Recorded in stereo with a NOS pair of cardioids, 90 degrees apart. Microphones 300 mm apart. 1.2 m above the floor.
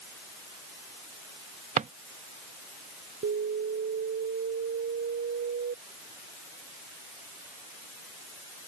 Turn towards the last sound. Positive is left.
turn(degrees=-45)